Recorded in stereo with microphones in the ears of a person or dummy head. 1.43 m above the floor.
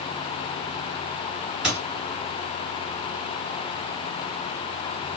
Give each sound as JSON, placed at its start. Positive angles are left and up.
{"t": 1.6, "sound": "a squeak", "side_deg": -5, "distance_m": 2.5}